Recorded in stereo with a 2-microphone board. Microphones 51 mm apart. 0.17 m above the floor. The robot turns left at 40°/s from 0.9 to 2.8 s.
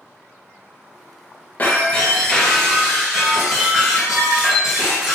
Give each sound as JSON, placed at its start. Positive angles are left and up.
{"t": 1.6, "sound": "breaking glass", "azimuth_deg": 35, "distance_m": 1.8}